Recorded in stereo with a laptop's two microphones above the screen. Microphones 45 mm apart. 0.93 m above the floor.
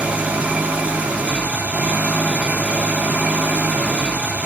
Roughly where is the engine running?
Right.